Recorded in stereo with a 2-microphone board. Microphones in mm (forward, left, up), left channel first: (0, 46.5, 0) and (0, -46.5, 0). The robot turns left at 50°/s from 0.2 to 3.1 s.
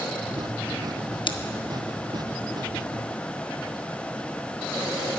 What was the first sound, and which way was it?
Scissors, 60° left (ahead or behind).